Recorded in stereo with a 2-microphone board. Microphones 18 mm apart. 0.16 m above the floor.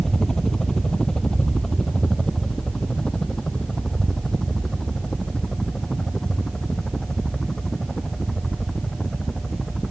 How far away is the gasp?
I don't hear a gasp.